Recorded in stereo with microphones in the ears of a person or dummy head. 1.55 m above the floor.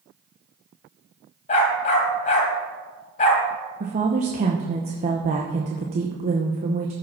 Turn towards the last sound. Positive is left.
turn(degrees=-35)  # may be behind; listen again after turning